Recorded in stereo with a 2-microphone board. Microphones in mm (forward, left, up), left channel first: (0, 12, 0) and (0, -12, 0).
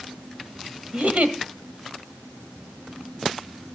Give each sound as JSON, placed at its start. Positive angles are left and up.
{"t": 0.9, "sound": "a giggle", "side_deg": -70, "distance_m": 1.4}